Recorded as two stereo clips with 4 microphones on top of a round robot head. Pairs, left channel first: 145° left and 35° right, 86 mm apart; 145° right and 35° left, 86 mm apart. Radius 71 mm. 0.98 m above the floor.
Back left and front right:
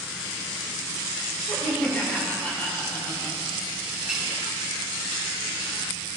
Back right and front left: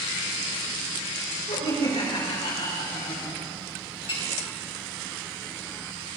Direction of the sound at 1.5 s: 150° right.